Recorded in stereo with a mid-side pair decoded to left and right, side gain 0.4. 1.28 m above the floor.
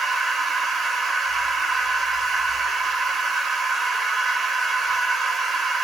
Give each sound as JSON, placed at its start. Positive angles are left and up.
{"t": 0.0, "sound": "a machine running", "azimuth_deg": -50, "distance_m": 0.8}